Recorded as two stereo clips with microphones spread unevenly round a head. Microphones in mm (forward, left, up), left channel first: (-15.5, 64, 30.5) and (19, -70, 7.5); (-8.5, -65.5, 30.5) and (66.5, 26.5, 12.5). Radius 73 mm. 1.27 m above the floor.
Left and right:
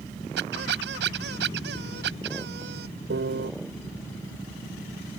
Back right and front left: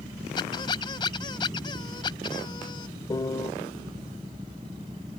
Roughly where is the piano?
Right.